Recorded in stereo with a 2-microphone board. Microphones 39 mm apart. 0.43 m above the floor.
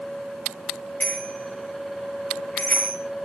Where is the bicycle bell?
40° left (ahead or behind), 7.5 m.